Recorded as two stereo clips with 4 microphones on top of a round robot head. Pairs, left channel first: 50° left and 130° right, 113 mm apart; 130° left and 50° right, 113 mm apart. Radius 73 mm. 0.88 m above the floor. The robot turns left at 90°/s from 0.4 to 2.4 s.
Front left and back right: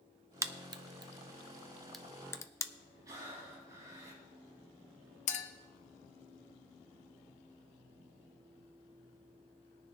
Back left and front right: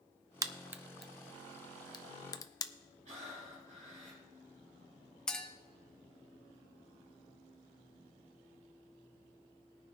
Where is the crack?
85° right, 0.7 m; by 2.7 s 95° left, 0.7 m.